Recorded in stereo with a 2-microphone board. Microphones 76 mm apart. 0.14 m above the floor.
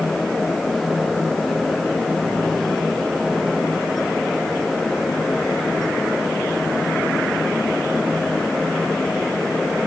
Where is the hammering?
No hammering in this recording.